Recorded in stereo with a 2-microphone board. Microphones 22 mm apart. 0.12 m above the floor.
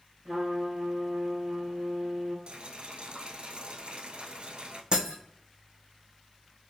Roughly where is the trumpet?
Centre.